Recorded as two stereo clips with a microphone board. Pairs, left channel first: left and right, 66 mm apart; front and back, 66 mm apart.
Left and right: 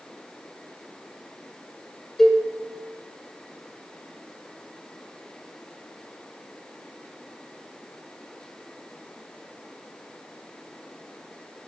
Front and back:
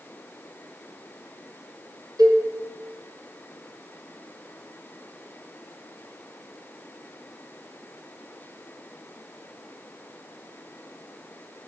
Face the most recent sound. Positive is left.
turn(degrees=175)